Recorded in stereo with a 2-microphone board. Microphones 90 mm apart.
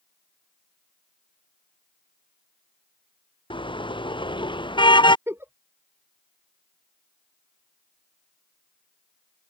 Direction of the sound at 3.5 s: 65° left (ahead or behind).